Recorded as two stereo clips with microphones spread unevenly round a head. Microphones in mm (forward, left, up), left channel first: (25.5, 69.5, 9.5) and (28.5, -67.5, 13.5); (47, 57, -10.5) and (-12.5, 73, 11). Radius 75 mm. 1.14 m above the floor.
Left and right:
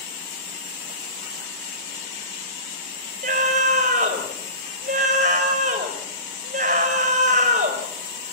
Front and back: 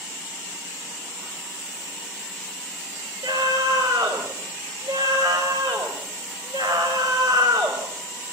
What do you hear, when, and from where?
3.2 s a scream: 135° right, 4.5 m